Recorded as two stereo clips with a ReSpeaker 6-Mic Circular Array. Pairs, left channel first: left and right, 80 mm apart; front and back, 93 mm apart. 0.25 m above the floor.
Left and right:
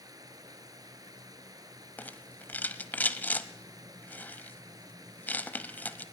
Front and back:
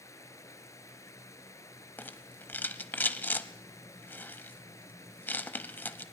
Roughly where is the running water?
Ahead right.